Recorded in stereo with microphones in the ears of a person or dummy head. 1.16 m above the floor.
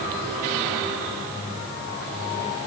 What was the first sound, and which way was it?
Only background noise.